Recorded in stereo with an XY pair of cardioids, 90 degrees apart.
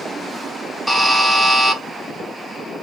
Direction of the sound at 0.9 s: 5° right.